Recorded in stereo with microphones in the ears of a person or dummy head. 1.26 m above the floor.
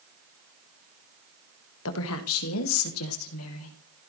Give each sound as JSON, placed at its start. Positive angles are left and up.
{"t": 1.9, "sound": "a woman speaking", "side_deg": 75, "distance_m": 1.6}